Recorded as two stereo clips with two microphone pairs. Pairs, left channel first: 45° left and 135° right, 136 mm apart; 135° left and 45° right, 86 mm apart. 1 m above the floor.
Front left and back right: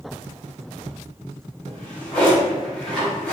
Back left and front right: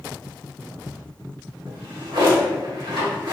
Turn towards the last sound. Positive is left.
turn(degrees=-40)